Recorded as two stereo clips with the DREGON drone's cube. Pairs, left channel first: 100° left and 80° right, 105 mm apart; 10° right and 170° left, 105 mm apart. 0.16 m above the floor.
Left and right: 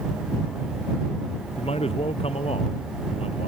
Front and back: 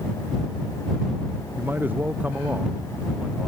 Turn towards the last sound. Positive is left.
turn(degrees=90)